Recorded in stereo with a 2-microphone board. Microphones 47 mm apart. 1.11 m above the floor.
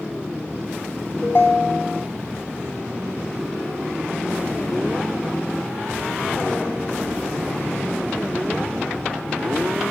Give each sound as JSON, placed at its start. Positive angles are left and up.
{"t": 1.2, "sound": "a ringtone", "side_deg": 50, "distance_m": 1.9}